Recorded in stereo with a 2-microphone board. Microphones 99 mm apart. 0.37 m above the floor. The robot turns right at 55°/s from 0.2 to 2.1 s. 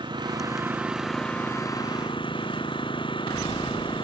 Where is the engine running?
50° right; by 4.0 s 55° left.